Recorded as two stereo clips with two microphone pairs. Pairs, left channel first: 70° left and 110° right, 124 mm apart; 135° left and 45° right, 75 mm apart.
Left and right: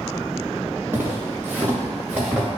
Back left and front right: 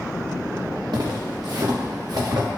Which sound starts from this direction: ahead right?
Footsteps, at 0.9 s.